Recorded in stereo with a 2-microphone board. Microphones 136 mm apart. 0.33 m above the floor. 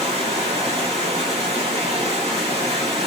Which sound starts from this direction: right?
Running water, at 0.0 s.